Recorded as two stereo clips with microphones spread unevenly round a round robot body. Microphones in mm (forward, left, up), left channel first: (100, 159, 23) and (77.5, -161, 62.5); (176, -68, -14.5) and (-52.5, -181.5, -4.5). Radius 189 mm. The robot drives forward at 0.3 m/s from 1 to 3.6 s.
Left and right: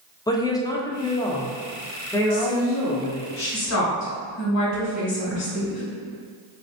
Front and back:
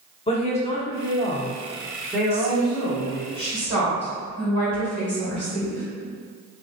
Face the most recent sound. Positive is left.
turn(degrees=120)